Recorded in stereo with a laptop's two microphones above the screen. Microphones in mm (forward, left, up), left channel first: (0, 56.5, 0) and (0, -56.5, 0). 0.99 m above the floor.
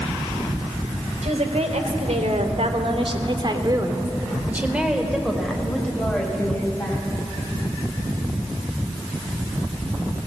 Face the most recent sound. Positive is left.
turn(degrees=15)  # may be behind; listen again after turning